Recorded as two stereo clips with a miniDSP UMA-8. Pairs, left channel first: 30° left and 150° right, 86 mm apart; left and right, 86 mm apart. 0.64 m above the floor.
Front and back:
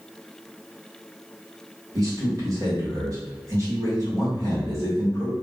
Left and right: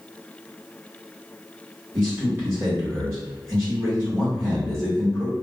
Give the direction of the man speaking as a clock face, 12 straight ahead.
4 o'clock.